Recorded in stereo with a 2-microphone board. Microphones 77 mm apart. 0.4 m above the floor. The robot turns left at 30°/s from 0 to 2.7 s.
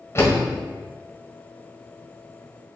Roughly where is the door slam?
Left.